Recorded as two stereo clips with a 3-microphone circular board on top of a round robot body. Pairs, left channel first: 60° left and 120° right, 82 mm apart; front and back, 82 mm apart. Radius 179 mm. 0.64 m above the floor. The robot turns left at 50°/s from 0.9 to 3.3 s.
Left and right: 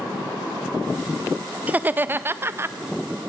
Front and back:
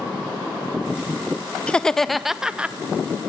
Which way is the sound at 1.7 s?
65° right.